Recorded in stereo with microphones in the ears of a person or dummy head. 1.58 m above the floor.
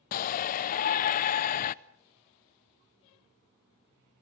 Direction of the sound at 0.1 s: 45° left (ahead or behind).